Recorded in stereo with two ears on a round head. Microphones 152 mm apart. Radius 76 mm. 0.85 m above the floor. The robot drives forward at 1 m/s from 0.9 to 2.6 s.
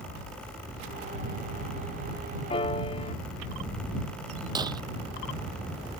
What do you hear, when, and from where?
2.5 s a piano: 30° left (ahead or behind); by 3.1 s 35° left (ahead or behind)
4.5 s breaking glass: 25° right (ahead or behind)